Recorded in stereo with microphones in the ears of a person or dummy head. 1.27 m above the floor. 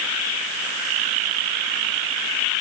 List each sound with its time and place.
Only background noise.